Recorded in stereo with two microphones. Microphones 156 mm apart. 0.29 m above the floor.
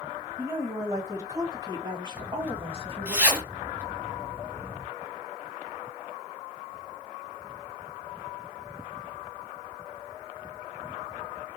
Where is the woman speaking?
15° right (ahead or behind), 2.5 m; by 3.1 s 40° right (ahead or behind), 1.7 m.